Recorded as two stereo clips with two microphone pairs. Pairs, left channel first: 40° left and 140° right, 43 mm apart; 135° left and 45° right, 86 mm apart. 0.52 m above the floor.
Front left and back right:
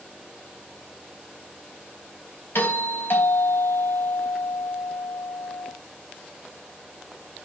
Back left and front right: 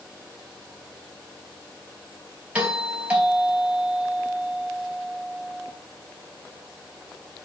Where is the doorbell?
30° left, 3.5 m.